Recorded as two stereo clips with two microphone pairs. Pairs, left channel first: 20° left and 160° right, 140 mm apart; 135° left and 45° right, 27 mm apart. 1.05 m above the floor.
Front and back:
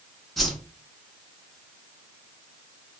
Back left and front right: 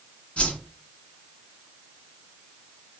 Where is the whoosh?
110° left, 1.7 m.